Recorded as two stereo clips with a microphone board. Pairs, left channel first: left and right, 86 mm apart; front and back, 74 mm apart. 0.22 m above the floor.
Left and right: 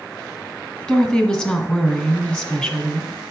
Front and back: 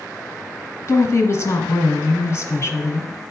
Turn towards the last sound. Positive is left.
turn(degrees=25)